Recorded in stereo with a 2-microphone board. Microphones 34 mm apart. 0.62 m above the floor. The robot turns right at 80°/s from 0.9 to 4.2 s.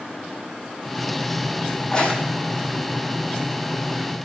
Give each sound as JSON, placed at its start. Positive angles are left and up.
{"t": 1.8, "sound": "a crack", "side_deg": 40, "distance_m": 8.0}